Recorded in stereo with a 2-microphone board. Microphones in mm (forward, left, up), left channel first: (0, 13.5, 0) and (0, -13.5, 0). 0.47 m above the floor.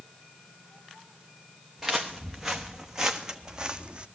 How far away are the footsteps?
About 2.0 m.